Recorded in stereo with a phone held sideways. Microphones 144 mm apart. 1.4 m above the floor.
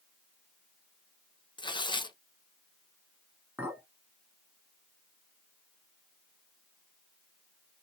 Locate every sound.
1.6 s tearing paper: 30° left (ahead or behind), 0.5 m
3.6 s a clink: 10° right (ahead or behind), 1.8 m